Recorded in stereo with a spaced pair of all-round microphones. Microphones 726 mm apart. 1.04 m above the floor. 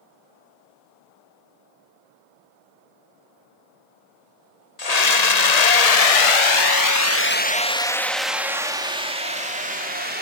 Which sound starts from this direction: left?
A scream, at 4.8 s.